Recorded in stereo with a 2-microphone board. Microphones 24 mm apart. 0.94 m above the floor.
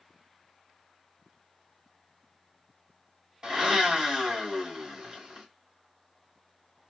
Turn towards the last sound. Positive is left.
turn(degrees=-35)  # may be behind; listen again after turning